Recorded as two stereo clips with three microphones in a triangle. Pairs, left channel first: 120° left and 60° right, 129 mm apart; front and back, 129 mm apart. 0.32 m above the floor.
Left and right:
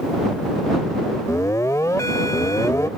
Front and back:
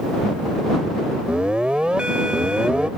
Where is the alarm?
110° left.